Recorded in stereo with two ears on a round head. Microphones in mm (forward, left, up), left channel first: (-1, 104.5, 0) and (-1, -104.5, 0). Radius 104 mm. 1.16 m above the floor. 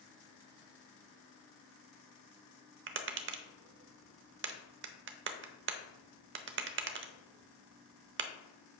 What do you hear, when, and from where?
2.9 s tapping: 50° right (ahead or behind), 0.7 m